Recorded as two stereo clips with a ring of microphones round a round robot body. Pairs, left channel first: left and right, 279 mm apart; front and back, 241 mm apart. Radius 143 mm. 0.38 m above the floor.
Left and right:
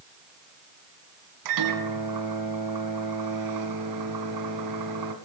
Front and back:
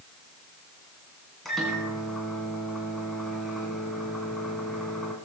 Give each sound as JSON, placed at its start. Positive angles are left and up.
{"t": 1.4, "sound": "a microwave", "azimuth_deg": -90, "distance_m": 2.5}